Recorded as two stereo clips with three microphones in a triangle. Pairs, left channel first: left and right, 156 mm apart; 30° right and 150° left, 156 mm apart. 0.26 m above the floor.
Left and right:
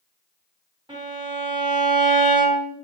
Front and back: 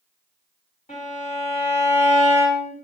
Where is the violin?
40° right, 2.5 m.